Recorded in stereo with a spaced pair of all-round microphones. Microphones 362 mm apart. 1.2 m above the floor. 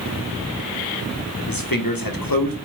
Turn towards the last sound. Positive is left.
turn(degrees=70)  # may be behind; listen again after turning